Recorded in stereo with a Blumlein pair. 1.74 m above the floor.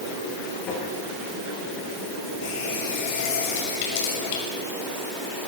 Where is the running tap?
50° left, 6 m.